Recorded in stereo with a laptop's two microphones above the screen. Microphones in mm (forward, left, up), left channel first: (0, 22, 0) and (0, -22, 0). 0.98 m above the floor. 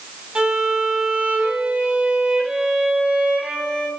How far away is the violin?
About 1.2 m.